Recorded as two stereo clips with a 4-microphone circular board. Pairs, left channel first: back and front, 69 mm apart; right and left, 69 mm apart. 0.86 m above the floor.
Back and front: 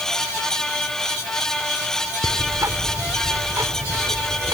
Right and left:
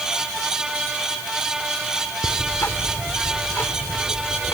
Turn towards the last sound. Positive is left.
turn(degrees=-40)